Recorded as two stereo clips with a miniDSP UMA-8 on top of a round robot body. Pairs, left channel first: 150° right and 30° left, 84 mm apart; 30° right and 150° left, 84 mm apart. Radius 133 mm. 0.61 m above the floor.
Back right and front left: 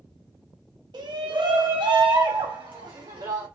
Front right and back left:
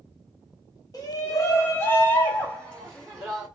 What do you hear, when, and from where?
0.9 s a shout: 10° left, 1.3 m; by 3.5 s 55° left, 1.9 m